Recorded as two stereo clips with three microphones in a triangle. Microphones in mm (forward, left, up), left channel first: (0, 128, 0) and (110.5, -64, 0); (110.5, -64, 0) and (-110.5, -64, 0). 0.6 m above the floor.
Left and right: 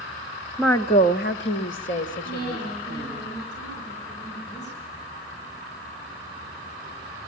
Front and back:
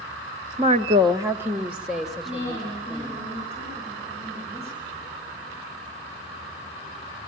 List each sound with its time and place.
0.6 s a woman speaking: 150° right, 0.7 m; by 3.2 s 85° left, 3 m
2.2 s a woman speaking: 120° left, 8.5 m